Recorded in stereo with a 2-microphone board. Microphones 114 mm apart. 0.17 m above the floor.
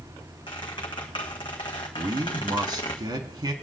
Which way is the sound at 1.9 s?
40° right (ahead or behind).